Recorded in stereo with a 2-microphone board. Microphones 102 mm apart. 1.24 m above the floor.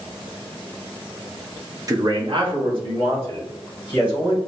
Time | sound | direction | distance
1.9 | a man speaking | 35° right (ahead or behind) | 0.6 m